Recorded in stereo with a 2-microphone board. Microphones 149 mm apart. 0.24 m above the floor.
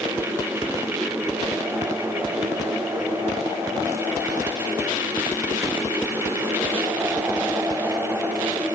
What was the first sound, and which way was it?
Only background noise.